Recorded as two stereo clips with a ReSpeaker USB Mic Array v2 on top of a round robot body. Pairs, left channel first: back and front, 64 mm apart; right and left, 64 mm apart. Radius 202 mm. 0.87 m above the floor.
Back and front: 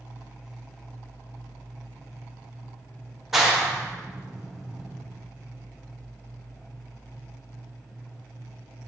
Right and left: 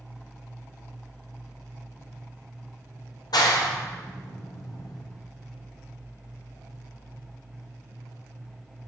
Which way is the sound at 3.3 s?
85° right.